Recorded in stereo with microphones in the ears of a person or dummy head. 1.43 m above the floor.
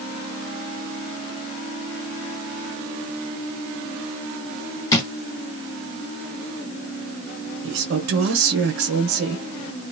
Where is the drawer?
25° left (ahead or behind), 1.1 m.